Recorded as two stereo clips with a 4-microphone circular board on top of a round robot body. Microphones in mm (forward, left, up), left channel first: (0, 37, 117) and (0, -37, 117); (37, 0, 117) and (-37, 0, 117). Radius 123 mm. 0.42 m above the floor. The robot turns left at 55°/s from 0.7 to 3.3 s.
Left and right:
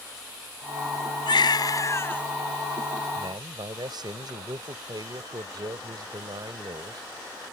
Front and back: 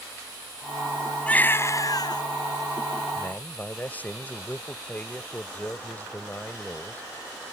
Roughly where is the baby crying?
Left.